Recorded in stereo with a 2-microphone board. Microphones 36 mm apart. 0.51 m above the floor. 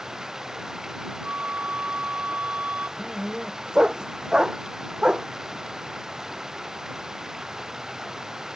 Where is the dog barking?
20° right (ahead or behind).